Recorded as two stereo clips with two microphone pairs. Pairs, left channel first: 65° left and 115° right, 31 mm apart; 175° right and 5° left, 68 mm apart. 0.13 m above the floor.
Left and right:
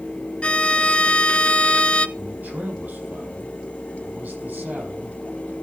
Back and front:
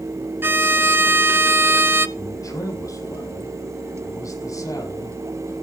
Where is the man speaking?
135° right, 5.5 m.